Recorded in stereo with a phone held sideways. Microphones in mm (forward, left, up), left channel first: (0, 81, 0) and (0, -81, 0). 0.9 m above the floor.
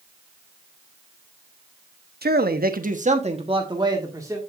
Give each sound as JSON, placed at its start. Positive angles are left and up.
{"t": 2.2, "sound": "a man speaking", "side_deg": -75, "distance_m": 1.1}